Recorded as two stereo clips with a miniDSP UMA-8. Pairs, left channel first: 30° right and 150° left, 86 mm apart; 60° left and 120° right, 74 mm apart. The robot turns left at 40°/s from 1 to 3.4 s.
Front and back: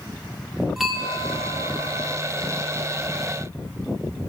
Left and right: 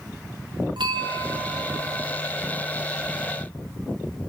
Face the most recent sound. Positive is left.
turn(degrees=140)